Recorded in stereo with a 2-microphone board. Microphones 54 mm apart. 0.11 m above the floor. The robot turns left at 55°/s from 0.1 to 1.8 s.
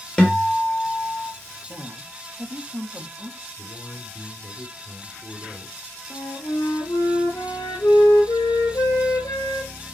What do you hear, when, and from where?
0.2 s a guitar: 155° left, 2.5 m; by 1.3 s 90° left, 2.5 m
1.7 s a woman speaking: 45° right (ahead or behind), 2.5 m; by 3.5 s 50° right (ahead or behind), 2.5 m
3.6 s a man speaking: 50° left (ahead or behind), 2.5 m
6.1 s a flute: 80° left, 4 m